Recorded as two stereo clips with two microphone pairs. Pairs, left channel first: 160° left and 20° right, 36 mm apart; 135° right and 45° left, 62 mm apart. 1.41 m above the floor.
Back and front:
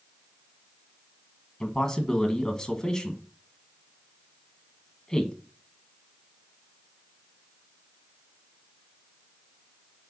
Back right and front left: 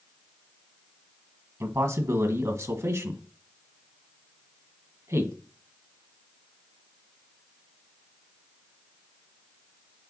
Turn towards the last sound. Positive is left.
turn(degrees=85)